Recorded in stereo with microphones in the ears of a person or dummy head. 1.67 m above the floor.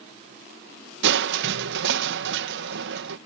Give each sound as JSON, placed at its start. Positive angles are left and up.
{"t": 1.0, "sound": "crushing", "side_deg": -75}